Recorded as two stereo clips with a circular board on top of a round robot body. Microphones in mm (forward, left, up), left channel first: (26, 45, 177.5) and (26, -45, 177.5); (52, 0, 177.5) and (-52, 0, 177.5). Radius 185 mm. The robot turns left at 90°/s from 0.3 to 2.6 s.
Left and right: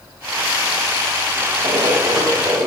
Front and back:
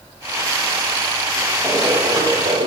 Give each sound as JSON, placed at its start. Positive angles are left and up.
{"t": 1.6, "sound": "running footsteps", "azimuth_deg": -95, "distance_m": 9.5}